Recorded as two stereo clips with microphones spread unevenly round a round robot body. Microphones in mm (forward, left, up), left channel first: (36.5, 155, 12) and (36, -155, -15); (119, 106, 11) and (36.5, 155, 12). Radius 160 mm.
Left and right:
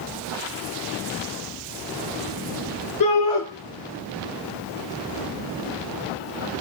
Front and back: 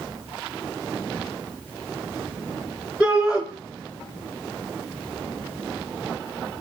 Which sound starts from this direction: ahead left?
A shout, at 3.0 s.